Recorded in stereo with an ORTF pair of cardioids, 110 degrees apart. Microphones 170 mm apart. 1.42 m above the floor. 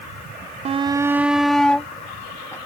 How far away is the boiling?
I don't hear boiling.